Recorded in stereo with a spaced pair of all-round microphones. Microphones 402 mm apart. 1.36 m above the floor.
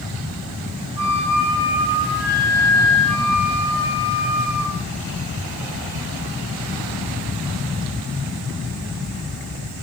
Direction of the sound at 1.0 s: 70° right (ahead or behind).